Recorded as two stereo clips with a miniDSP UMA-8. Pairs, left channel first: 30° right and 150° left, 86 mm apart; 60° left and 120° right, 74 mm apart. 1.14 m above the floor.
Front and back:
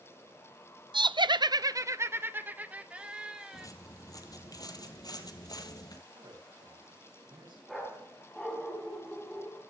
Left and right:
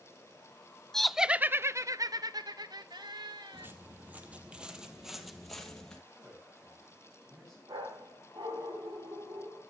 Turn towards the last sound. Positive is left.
turn(degrees=-115)